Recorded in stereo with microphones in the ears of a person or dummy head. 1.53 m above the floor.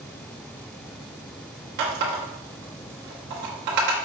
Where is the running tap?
50° right (ahead or behind), 1.1 m.